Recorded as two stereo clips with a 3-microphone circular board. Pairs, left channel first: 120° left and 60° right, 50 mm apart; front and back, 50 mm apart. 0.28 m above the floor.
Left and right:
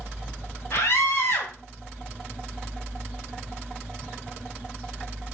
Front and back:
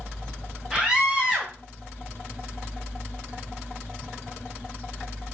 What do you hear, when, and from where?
0.7 s a scream: 100° left, 2 m